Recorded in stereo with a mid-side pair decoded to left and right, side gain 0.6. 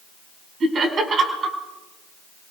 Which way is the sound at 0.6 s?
40° right.